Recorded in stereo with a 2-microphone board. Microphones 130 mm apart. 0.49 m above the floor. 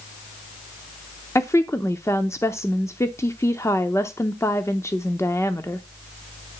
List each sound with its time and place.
1.4 s a woman speaking: 20° left (ahead or behind), 0.7 m